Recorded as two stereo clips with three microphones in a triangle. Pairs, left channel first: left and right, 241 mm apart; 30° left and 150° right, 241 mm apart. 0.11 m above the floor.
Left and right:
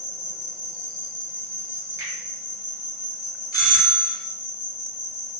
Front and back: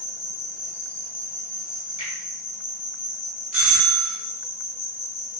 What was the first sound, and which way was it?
An insect, 70° left.